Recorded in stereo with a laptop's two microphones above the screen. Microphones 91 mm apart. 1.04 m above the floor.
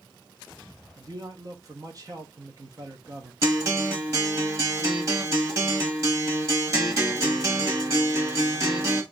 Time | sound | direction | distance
1.0 | a man speaking | 40° right (ahead or behind) | 0.7 m
3.4 | a guitar | 35° right (ahead or behind) | 1.2 m